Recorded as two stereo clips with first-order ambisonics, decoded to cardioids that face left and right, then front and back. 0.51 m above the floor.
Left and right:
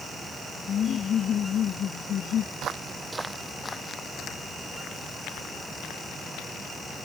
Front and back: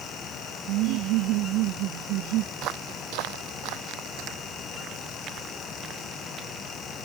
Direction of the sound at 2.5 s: 140° right.